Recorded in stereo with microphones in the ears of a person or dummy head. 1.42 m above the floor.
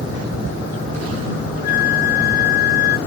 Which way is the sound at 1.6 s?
60° left (ahead or behind).